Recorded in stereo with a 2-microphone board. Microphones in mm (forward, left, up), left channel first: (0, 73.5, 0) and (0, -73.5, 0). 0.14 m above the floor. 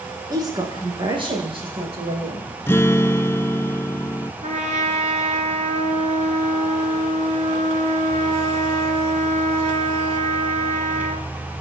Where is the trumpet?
55° right (ahead or behind), 2.5 m.